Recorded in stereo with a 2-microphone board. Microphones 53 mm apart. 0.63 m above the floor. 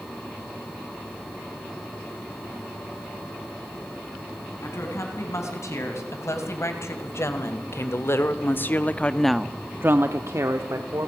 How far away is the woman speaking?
About 5.5 m.